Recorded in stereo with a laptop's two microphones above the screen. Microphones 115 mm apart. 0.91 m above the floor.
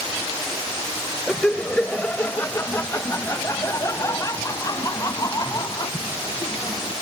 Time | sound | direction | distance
1.3 | laughter | 5° left (ahead or behind) | ?